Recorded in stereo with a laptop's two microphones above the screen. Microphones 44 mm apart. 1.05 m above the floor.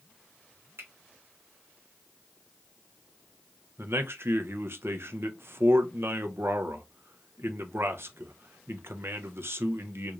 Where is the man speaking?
60° right (ahead or behind), 0.6 m.